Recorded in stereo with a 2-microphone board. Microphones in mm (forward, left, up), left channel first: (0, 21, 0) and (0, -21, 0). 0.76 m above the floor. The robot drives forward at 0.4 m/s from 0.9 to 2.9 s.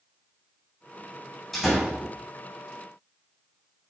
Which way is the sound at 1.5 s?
5° left (ahead or behind).